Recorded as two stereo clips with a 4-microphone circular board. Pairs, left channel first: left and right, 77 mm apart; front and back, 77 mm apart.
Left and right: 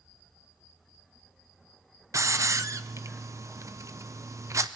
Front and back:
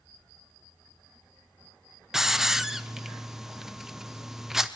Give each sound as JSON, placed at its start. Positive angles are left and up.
{"t": 2.1, "sound": "a hiss", "azimuth_deg": -95, "distance_m": 0.6}